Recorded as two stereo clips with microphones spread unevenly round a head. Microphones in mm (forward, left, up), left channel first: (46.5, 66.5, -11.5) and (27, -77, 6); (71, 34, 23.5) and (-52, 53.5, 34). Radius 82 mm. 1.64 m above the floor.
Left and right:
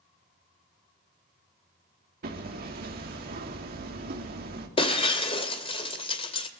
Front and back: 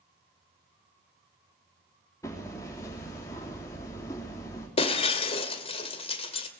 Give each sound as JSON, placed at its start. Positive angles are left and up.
{"t": 2.2, "sound": "hammering", "azimuth_deg": -80, "distance_m": 3.5}
{"t": 4.8, "sound": "breaking glass", "azimuth_deg": 30, "distance_m": 2.5}